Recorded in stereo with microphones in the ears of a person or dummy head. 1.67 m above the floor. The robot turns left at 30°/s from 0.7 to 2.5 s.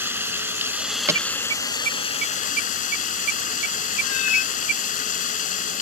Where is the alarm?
15° right (ahead or behind); by 4.8 s 60° right (ahead or behind).